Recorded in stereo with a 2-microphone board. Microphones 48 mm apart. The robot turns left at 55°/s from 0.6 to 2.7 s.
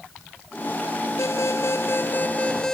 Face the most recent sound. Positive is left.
turn(degrees=15)